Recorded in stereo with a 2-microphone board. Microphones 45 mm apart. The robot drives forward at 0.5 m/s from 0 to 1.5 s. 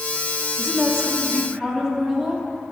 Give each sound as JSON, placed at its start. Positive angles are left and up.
{"t": 0.6, "sound": "a woman speaking", "side_deg": -20, "distance_m": 1.2}